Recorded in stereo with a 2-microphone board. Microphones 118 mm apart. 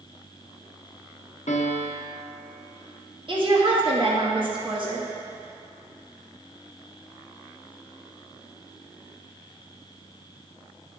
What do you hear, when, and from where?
1.5 s a piano: 70° left (ahead or behind), 0.7 m
3.3 s a woman speaking: 45° right (ahead or behind), 1.3 m